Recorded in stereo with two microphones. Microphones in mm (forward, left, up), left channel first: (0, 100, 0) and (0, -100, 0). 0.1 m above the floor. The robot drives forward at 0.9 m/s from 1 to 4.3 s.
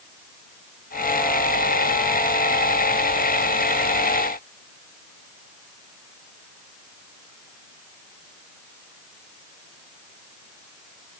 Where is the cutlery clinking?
No cutlery clinking in this recording.